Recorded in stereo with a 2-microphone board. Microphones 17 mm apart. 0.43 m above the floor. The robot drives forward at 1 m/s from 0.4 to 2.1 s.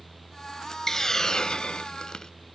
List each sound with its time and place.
0.9 s a hiss: 25° left (ahead or behind), 1.0 m; by 2.3 s 45° left (ahead or behind), 0.6 m